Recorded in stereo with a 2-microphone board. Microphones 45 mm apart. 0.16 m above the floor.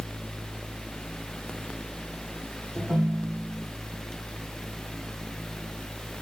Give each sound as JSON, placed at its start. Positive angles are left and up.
{"t": 2.8, "sound": "a ringtone", "side_deg": -45, "distance_m": 7.5}